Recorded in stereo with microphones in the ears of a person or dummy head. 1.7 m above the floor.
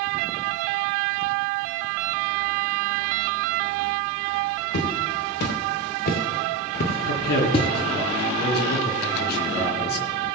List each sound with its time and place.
4.7 s footsteps: 65° left (ahead or behind), 3.5 m; by 7.7 s 25° left (ahead or behind), 1.8 m
7.1 s a man speaking: 55° left (ahead or behind), 3 m